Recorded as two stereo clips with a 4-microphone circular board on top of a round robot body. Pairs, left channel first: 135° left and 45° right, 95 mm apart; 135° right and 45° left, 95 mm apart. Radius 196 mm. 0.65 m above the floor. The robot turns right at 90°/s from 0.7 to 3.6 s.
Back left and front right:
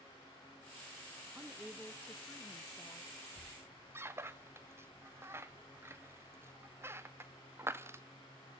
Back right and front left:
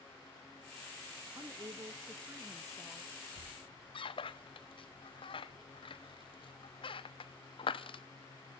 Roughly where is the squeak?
Behind right.